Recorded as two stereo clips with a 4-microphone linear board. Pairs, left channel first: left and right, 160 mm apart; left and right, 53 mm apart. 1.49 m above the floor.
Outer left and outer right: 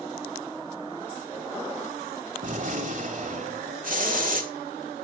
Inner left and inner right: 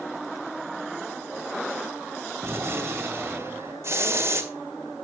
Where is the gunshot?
50° right (ahead or behind), 2.0 m.